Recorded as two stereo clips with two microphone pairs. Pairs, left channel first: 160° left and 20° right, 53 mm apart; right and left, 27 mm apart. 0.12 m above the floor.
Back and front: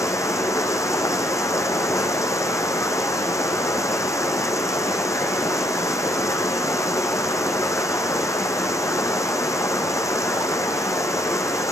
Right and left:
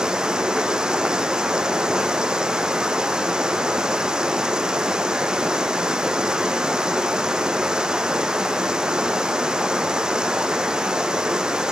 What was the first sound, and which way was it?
Running water, 150° left.